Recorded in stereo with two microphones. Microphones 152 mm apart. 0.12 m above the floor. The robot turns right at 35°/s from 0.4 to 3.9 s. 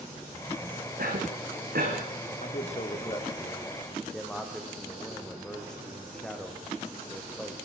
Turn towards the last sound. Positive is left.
turn(degrees=175)